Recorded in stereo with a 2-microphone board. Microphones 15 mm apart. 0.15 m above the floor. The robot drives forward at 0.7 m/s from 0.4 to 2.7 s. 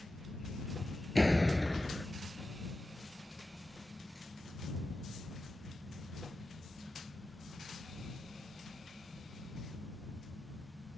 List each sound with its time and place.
1.1 s a door slam: centre (ahead or behind)